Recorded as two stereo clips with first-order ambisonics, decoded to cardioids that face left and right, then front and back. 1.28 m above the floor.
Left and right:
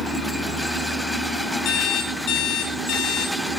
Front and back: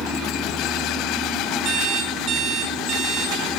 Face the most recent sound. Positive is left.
turn(degrees=135)